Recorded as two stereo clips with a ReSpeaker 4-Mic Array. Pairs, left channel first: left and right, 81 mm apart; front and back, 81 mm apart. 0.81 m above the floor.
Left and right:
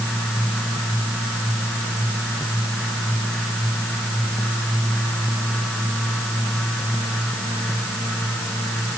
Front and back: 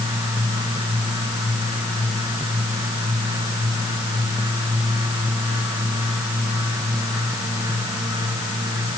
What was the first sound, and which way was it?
Only background noise.